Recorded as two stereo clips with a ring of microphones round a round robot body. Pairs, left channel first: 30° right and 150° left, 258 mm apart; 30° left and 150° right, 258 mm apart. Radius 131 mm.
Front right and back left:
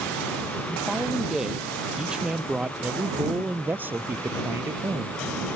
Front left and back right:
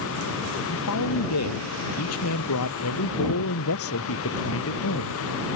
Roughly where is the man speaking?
Ahead left.